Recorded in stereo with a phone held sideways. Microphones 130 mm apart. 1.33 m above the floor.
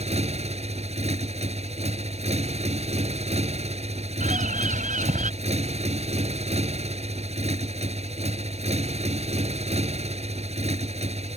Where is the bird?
80° right.